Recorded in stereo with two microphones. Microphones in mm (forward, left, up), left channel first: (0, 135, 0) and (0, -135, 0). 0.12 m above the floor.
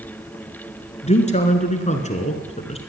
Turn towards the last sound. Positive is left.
turn(degrees=25)  # may be behind; listen again after turning